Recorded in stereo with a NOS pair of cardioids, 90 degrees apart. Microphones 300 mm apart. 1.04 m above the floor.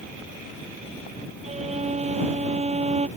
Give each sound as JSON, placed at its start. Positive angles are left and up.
{"t": 1.4, "sound": "a violin", "azimuth_deg": -20}